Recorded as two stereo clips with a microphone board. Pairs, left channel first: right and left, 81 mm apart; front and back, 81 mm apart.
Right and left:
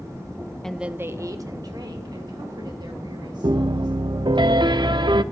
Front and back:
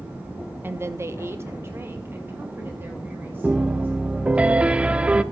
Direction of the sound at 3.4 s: 105° left.